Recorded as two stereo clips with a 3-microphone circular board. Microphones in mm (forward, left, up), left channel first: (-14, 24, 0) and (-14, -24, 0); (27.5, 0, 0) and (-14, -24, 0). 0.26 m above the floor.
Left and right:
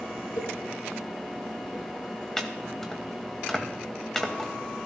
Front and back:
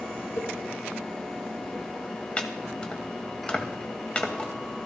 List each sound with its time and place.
0.4 s a cowbell: 70° left, 3.5 m
2.4 s chopping: 25° left, 1.6 m